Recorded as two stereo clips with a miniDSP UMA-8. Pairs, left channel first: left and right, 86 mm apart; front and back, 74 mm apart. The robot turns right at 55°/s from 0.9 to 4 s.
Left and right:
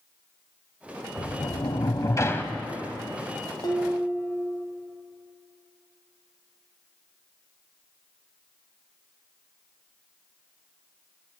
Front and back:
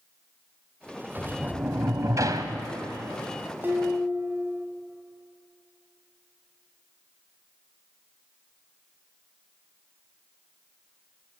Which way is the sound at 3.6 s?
120° left.